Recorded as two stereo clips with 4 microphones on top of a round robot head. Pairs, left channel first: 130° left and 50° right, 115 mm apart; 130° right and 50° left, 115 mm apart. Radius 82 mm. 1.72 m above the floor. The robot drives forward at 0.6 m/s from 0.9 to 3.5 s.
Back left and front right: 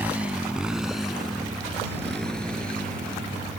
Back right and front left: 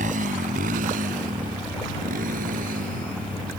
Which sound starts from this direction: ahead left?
A motorcycle, at 0.0 s.